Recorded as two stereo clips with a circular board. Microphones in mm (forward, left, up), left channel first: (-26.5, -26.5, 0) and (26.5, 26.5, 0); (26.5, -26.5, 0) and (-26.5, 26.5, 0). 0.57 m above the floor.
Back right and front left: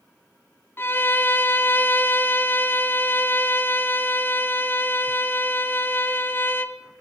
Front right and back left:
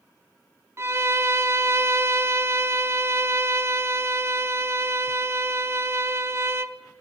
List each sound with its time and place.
0.8 s a violin: 175° left, 0.5 m